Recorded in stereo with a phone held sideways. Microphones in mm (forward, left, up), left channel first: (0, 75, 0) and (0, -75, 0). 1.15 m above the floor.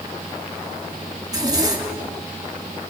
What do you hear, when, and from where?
1.2 s a zipper: 25° right (ahead or behind), 3 m